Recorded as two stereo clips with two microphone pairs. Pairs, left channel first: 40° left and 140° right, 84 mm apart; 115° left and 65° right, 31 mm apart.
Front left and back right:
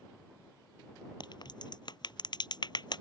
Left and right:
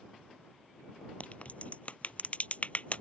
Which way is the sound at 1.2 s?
70° left.